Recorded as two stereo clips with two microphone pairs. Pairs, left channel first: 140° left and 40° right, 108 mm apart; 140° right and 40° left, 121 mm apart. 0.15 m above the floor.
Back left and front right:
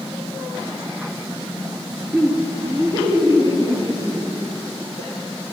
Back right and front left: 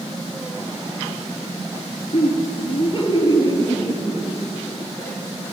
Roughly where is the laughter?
Behind right.